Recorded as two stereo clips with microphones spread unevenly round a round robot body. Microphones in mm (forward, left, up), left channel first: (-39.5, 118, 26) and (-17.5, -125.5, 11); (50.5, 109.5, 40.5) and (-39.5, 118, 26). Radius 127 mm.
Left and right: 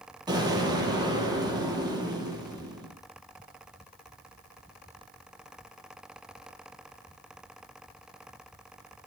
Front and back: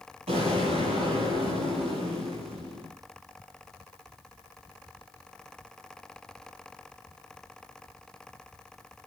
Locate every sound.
0.3 s an explosion: 160° right, 9.5 m